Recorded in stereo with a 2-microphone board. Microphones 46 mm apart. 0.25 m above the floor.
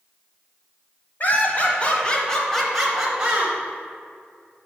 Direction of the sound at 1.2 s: 40° left (ahead or behind).